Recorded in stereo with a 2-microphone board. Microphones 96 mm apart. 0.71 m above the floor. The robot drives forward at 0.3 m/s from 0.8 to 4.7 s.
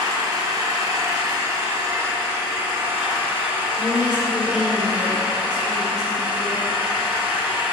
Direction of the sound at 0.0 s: 40° right (ahead or behind).